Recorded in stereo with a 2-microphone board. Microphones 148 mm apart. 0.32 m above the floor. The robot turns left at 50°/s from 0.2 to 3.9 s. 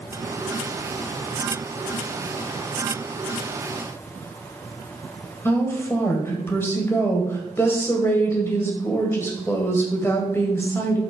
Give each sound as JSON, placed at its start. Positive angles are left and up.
{"t": 5.5, "sound": "a woman speaking", "side_deg": 15, "distance_m": 1.7}